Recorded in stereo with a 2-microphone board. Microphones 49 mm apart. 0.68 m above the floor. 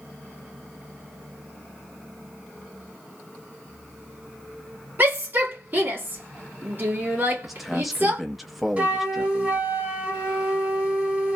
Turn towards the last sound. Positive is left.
turn(degrees=-30)  # may be behind; listen again after turning